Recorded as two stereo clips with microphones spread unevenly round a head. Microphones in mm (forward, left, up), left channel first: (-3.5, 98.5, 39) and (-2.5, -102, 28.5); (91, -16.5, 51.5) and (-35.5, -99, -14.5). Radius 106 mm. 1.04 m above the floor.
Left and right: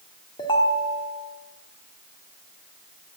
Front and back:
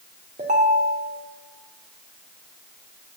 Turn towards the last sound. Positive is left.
turn(degrees=160)